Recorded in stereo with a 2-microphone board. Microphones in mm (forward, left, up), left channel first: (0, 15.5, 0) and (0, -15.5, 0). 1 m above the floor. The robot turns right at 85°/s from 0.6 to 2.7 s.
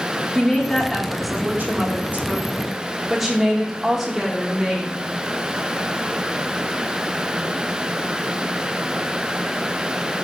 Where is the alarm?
I don't hear an alarm.